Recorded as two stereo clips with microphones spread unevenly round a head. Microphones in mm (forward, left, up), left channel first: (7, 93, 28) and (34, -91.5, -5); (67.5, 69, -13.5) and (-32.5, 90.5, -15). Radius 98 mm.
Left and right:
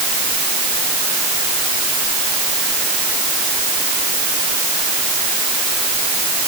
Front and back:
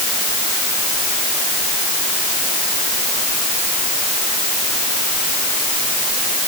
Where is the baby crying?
I don't hear a baby crying.